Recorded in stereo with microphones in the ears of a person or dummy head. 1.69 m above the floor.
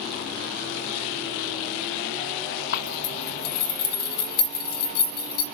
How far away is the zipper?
About 0.8 m.